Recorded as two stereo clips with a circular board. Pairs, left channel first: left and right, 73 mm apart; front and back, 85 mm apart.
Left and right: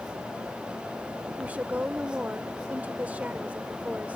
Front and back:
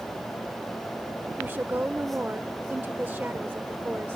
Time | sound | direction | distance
1.4 | a woman speaking | 135° right | ?